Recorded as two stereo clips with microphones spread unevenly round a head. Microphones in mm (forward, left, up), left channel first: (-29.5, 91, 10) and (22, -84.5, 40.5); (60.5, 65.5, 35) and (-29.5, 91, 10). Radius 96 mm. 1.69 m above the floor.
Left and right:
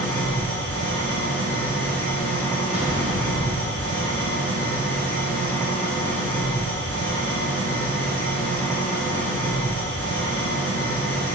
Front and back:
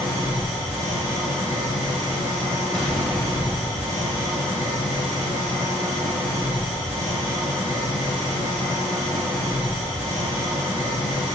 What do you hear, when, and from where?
0.0 s an engine running: 170° right, 1.4 m
2.7 s an explosion: 85° right, 1.7 m